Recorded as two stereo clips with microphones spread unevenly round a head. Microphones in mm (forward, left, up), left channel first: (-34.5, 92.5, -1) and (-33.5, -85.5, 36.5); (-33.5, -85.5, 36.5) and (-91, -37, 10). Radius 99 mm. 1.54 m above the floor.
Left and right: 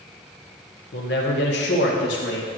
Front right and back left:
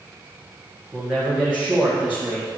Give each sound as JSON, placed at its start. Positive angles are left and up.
{"t": 0.9, "sound": "a man speaking", "azimuth_deg": 50, "distance_m": 1.2}